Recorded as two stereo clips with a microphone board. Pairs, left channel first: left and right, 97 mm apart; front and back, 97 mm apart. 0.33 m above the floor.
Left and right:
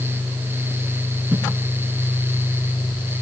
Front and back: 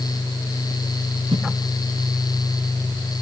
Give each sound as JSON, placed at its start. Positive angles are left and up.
{"t": 1.3, "sound": "a whoosh", "azimuth_deg": -160, "distance_m": 2.5}